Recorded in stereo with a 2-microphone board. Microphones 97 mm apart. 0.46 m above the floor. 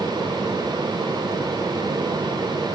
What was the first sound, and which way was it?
Only background noise.